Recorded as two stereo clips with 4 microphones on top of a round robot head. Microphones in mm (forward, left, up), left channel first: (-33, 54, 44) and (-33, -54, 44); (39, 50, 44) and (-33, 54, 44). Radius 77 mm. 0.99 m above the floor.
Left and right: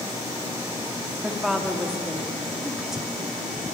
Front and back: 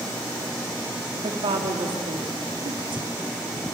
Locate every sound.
1.2 s a woman speaking: 175° right, 1.7 m